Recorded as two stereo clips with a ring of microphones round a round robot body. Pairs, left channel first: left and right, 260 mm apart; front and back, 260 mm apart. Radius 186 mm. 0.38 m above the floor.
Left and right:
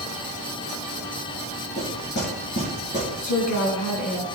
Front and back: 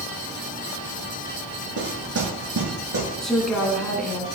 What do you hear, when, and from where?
1.8 s knocking: 155° left, 7 m
3.2 s a woman speaking: 90° left, 3.5 m